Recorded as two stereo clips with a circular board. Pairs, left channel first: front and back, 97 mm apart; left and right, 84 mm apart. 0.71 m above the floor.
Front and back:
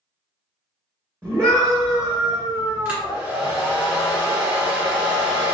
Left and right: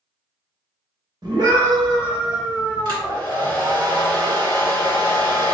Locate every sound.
1.2 s a scream: 115° right, 1.1 m; by 3.2 s 135° right, 3.5 m
2.9 s a hair dryer: 115° right, 1.7 m